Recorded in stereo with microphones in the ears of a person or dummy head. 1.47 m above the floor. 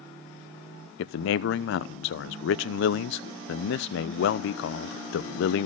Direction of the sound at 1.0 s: 65° left (ahead or behind).